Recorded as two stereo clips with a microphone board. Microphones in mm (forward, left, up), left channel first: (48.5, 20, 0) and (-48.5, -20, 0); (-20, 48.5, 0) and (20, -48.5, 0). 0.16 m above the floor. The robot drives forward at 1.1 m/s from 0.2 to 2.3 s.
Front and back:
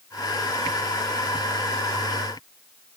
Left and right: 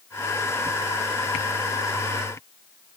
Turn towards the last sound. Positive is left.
No sound to turn to.